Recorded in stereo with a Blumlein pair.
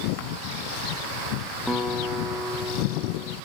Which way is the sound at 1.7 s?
Straight ahead.